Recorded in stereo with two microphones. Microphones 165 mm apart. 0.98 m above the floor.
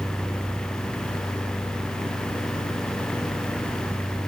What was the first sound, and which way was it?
Only background noise.